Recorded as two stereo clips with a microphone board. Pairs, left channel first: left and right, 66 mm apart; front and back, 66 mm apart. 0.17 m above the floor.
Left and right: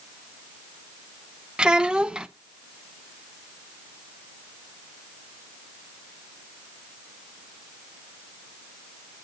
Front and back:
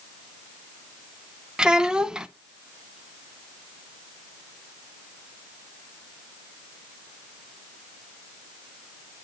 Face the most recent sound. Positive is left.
turn(degrees=-135)